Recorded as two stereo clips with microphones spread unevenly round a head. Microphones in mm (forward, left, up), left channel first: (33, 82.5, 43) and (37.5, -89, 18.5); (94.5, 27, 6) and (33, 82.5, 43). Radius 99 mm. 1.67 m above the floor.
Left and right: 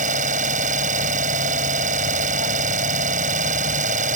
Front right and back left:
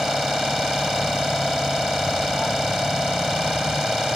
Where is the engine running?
145° right.